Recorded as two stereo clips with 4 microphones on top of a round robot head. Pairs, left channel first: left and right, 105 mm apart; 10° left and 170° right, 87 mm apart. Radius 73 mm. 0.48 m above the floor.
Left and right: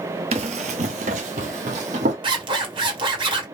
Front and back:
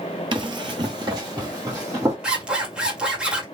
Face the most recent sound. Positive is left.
turn(degrees=-90)